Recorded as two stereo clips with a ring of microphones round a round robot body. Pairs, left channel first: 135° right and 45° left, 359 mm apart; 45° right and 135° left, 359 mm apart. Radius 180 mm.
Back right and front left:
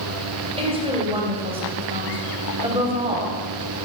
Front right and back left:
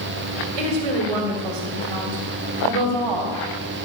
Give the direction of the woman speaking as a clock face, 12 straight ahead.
8 o'clock.